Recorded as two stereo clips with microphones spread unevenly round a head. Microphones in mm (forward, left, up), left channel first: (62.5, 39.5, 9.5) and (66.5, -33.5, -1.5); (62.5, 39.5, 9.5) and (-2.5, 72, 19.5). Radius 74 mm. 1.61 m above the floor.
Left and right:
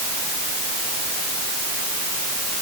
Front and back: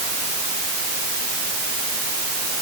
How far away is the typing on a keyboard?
No typing on a keyboard in this recording.